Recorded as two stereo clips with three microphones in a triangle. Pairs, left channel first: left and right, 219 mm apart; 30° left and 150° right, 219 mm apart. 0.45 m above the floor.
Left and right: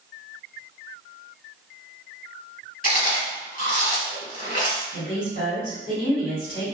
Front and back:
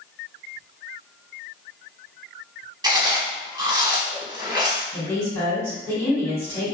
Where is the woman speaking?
100° left, 1.8 m.